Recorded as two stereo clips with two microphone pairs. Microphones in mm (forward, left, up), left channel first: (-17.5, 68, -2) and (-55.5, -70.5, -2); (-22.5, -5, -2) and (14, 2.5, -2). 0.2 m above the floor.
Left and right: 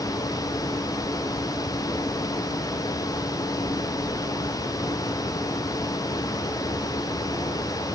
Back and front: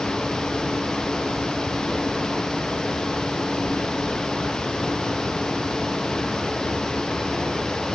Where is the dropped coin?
I don't hear a dropped coin.